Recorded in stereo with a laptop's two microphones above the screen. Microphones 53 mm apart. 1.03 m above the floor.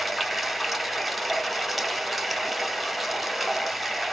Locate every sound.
0.0 s running water: centre (ahead or behind), 0.8 m